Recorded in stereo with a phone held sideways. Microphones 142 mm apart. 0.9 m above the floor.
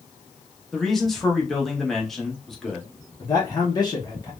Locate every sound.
0.7 s a man speaking: centre (ahead or behind), 1.1 m
3.2 s a man speaking: 30° left (ahead or behind), 0.7 m